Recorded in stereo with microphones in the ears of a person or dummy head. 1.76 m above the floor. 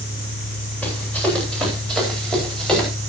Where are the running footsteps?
5° left (ahead or behind), 9.5 m.